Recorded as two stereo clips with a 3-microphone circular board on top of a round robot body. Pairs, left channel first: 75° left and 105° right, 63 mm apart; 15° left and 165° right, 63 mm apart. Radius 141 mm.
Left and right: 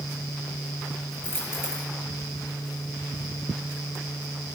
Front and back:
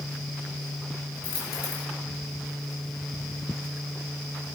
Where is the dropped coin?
20° left, 3.5 m.